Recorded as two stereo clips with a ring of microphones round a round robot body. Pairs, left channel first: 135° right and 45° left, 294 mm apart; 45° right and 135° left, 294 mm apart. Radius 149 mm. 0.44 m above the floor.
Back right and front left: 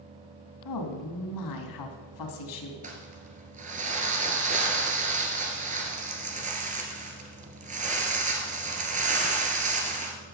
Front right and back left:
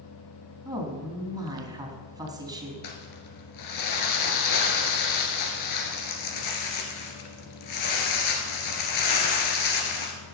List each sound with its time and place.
0.7 s a woman speaking: 145° right, 3 m
2.8 s crumpling: 20° right, 2 m